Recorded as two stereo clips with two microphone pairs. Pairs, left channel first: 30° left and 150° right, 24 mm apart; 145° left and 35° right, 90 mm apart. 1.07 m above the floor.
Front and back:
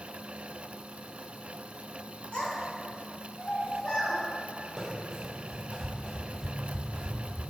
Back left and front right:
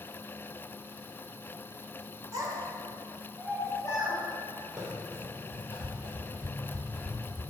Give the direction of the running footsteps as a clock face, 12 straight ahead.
3 o'clock.